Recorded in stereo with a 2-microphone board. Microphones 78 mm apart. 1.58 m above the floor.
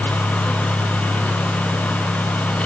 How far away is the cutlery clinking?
No cutlery clinking in this recording.